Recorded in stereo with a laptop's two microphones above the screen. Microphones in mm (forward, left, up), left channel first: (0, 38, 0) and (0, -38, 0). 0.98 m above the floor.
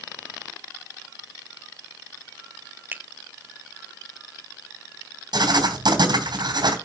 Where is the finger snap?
25° right (ahead or behind), 0.5 m.